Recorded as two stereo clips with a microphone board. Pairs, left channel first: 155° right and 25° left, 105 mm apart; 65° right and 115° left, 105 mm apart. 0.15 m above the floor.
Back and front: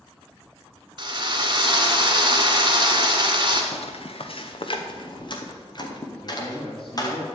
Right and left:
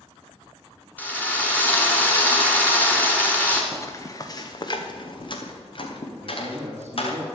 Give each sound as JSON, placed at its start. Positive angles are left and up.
{"t": 1.0, "sound": "a drill", "azimuth_deg": 0, "distance_m": 2.0}
{"t": 3.7, "sound": "footsteps", "azimuth_deg": -135, "distance_m": 1.5}
{"t": 6.2, "sound": "a man speaking", "azimuth_deg": 175, "distance_m": 2.5}